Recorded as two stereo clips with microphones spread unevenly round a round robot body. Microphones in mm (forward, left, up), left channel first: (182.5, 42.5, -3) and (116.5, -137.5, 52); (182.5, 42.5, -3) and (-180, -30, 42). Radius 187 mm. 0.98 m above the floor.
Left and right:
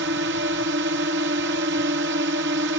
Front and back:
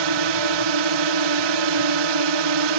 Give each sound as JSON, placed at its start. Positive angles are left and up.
{"t": 0.0, "sound": "a drone", "azimuth_deg": -160}